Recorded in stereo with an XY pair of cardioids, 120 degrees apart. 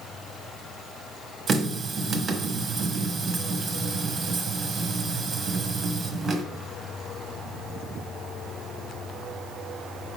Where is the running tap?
40° right, 1.2 m.